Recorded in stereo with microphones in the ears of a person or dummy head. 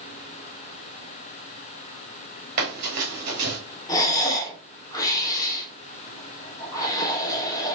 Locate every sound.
2.6 s running footsteps: 40° right (ahead or behind), 1.6 m
3.9 s breathing: 20° left (ahead or behind), 1.0 m